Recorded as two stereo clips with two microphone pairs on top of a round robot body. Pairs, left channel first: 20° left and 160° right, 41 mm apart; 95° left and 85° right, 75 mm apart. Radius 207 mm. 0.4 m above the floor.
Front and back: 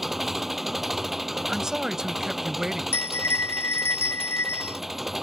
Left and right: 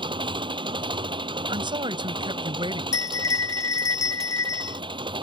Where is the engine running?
75° right.